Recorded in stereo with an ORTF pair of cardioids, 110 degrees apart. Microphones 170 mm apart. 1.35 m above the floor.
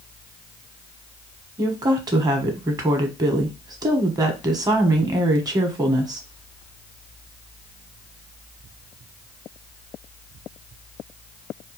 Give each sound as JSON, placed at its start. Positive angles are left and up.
{"t": 1.6, "sound": "a woman speaking", "azimuth_deg": -20, "distance_m": 1.0}